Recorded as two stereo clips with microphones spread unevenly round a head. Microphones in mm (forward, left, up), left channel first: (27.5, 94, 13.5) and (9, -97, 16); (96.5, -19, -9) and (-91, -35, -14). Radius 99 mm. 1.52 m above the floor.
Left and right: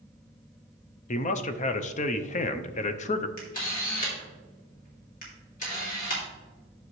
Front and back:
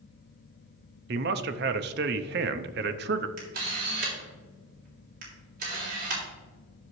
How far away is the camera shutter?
About 3 m.